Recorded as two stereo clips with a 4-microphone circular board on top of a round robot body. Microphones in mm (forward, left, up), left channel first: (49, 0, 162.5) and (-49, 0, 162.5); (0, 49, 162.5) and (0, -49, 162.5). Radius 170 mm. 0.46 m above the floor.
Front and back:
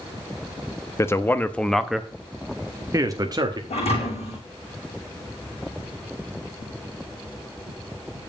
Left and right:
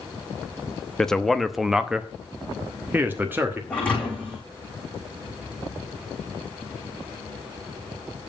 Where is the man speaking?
10° left, 1.1 m; by 3.6 s 150° right, 1.4 m.